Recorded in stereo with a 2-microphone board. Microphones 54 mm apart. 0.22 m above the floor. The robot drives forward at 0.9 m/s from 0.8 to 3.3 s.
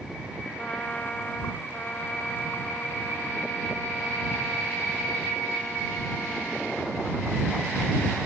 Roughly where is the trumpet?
Left.